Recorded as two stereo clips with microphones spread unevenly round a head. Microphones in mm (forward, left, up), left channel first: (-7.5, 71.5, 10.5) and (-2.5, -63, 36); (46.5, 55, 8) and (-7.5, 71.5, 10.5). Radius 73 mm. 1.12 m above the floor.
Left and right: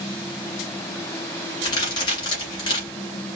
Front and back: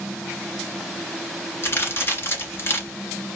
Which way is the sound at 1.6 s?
30° left.